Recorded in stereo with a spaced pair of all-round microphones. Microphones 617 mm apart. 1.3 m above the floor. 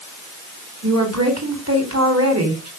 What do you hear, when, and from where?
0.8 s a woman speaking: 25° right (ahead or behind), 4 m